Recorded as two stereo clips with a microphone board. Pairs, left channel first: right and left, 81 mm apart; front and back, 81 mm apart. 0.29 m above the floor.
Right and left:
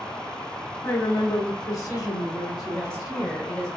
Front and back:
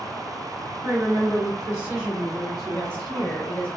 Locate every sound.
0.8 s a woman speaking: 130° right, 2.0 m; by 3.4 s 80° right, 2 m
2.7 s a woman speaking: 25° right, 0.9 m